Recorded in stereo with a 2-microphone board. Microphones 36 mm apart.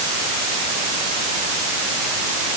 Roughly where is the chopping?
No chopping in this recording.